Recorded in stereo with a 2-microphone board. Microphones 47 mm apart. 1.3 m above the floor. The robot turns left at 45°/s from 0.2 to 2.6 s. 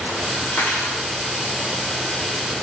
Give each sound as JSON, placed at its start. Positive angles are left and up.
{"t": 0.5, "sound": "cutlery clinking", "side_deg": 55, "distance_m": 0.8}